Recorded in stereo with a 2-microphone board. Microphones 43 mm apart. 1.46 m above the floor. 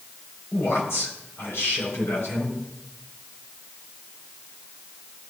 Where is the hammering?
I don't hear hammering.